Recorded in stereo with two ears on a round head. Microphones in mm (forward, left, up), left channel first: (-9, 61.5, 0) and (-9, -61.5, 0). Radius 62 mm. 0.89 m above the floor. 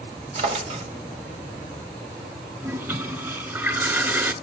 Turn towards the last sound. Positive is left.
turn(degrees=-20)  # may be behind; listen again after turning